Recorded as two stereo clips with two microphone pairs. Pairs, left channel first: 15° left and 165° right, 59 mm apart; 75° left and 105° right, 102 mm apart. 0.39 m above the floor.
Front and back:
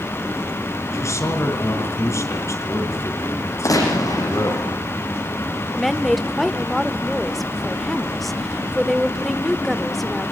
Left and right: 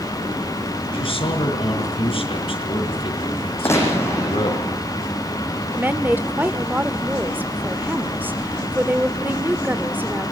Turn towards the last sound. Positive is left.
turn(degrees=-80)